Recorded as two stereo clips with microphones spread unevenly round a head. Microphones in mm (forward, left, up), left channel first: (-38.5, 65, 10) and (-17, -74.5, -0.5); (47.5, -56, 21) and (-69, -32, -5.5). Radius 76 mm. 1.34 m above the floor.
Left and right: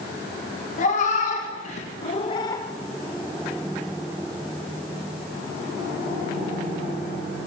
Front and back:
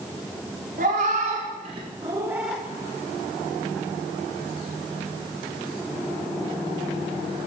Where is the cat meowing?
125° left, 1.1 m; by 2.6 s 50° left, 0.5 m.